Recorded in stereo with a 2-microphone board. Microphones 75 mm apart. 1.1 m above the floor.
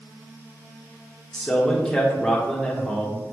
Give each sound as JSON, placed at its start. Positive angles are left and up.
{"t": 1.3, "sound": "a man speaking", "side_deg": 10, "distance_m": 1.5}